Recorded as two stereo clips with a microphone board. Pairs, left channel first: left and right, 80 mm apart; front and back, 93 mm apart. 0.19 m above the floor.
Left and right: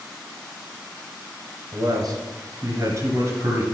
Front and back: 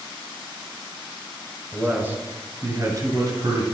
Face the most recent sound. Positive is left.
turn(degrees=-145)